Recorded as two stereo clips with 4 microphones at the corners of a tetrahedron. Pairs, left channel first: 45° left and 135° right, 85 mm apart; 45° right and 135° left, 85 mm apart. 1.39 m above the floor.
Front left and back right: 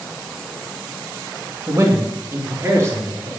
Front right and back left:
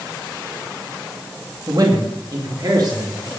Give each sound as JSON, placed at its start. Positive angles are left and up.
{"t": 1.7, "sound": "a man speaking", "azimuth_deg": 175, "distance_m": 2.0}